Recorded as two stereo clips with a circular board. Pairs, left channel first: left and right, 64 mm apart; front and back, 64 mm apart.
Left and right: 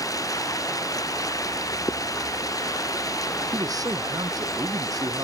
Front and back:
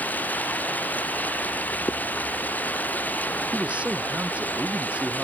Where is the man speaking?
110° right.